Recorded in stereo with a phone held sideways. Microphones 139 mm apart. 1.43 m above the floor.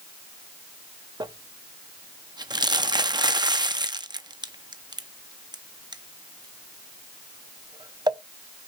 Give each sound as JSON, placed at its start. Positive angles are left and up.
{"t": 1.2, "sound": "crumpling", "side_deg": -30, "distance_m": 0.6}